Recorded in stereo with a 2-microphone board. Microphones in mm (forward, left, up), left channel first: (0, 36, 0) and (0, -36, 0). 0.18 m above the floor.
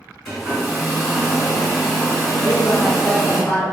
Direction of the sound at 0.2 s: Centre (ahead or behind).